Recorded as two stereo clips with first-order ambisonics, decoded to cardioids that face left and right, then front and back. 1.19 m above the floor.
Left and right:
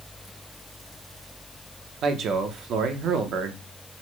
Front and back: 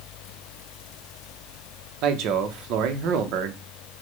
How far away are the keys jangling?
No keys jangling in this recording.